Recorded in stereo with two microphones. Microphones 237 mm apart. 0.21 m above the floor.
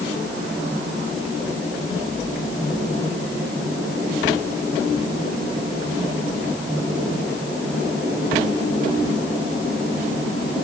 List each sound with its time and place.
Only background noise.